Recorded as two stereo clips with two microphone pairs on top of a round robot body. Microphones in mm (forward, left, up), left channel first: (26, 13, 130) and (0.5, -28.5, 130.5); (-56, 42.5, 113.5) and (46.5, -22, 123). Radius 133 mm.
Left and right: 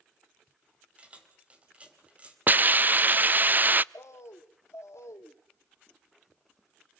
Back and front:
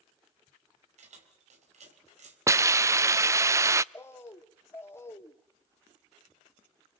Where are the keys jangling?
60° right, 3.5 m.